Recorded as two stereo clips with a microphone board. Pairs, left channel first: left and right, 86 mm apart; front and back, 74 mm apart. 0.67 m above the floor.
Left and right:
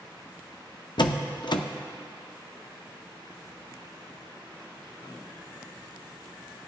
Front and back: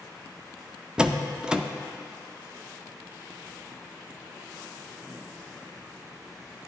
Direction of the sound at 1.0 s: 100° left.